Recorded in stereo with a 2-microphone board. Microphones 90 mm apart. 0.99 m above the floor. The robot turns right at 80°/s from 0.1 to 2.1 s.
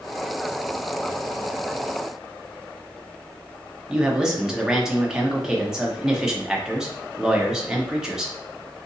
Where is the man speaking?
5° right (ahead or behind), 0.7 m.